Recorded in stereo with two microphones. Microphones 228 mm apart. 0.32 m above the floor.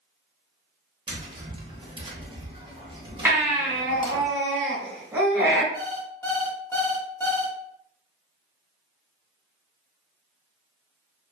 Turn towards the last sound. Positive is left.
turn(degrees=10)  # may be behind; listen again after turning